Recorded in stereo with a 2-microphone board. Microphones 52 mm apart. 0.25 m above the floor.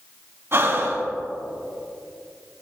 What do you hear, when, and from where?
0.5 s breathing: 50° right (ahead or behind), 1.6 m